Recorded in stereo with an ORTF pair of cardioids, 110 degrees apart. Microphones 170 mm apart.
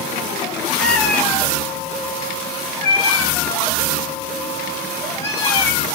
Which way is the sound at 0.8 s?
Straight ahead.